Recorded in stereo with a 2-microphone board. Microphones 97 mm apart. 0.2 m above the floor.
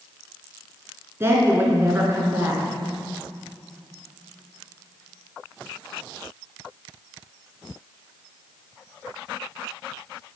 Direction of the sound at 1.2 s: 25° right (ahead or behind).